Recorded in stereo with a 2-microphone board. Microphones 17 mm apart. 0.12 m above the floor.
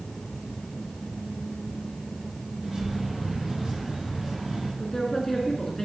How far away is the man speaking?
About 1.1 m.